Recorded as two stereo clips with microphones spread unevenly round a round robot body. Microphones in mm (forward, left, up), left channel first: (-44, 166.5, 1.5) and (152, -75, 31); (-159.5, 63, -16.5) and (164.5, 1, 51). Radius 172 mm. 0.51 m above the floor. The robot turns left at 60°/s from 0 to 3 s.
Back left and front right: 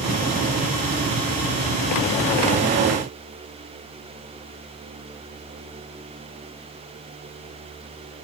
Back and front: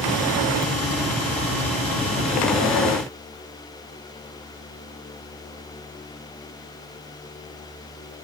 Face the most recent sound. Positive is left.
No sound to turn to.